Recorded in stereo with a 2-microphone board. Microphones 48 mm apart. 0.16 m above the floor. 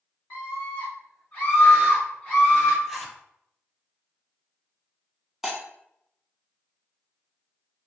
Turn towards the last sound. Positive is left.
turn(degrees=-10)  # may be behind; listen again after turning